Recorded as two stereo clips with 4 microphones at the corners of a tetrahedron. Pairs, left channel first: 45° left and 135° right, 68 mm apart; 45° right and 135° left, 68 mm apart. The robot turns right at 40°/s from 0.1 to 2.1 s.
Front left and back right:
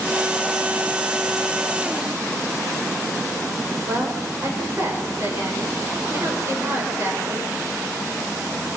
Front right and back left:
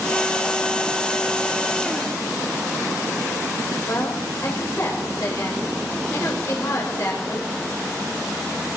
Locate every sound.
3.9 s a woman speaking: 85° right, 6 m